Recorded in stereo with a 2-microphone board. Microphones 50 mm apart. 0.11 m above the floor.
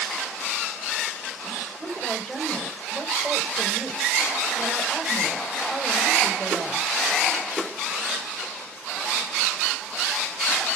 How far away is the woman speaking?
About 9.5 m.